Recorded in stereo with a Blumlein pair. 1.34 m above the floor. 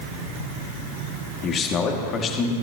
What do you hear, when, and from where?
1.4 s a man speaking: 25° left, 2 m